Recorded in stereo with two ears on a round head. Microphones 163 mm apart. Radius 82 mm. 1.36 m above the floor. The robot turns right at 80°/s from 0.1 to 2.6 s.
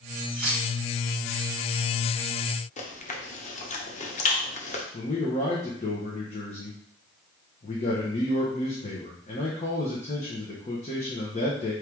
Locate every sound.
0.3 s keys jangling: 45° right (ahead or behind), 2.5 m; by 0.6 s 70° right (ahead or behind), 2.5 m
2.8 s chewing: 40° left (ahead or behind), 0.9 m
4.9 s a man speaking: 35° left (ahead or behind), 0.9 m